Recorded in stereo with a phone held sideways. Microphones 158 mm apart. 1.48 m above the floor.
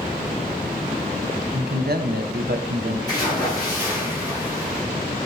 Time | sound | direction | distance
1.5 | a man speaking | 80° right | 0.8 m
3.1 | a splash | 25° left (ahead or behind) | 4 m